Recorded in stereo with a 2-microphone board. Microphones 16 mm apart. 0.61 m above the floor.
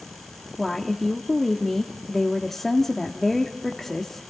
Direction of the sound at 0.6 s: 20° left (ahead or behind).